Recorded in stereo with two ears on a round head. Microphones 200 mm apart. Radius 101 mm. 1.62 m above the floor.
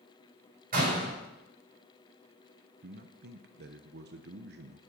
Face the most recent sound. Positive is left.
turn(degrees=-50)  # may be behind; listen again after turning